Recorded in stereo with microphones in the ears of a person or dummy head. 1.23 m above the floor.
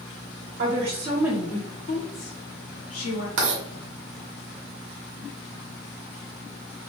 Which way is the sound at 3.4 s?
55° right (ahead or behind).